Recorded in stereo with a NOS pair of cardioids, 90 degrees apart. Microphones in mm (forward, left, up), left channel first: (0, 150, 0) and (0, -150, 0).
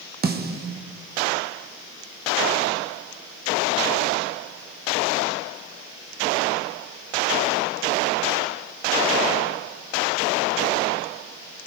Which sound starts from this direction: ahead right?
A snare drum, at 0.2 s.